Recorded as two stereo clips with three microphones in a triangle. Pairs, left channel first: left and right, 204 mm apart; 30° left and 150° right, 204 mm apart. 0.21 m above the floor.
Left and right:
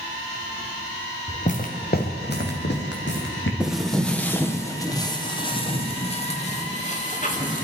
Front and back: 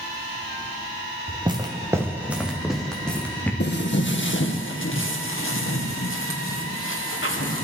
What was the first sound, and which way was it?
Footsteps, 150° left.